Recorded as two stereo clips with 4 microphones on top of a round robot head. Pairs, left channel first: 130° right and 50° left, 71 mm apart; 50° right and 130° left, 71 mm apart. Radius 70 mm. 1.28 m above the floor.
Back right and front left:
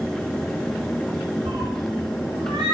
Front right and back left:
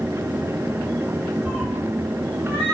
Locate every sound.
1.4 s a cat meowing: 65° left, 2.5 m; by 2.8 s 80° left, 2.0 m